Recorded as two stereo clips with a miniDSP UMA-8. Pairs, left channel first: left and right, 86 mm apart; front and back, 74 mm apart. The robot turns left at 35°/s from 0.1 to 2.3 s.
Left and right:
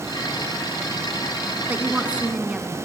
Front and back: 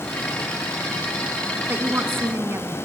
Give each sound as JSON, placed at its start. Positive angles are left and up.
{"t": 1.7, "sound": "a woman speaking", "azimuth_deg": -140, "distance_m": 1.4}